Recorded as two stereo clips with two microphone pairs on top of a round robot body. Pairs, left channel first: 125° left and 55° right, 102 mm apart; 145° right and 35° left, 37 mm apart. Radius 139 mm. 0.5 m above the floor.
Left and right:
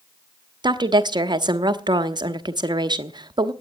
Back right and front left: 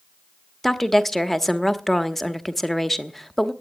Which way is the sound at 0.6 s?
55° right.